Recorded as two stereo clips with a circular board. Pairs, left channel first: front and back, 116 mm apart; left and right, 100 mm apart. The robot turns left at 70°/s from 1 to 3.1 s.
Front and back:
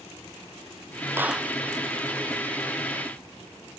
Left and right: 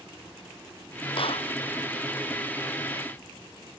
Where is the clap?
110° left; by 1.5 s 85° left.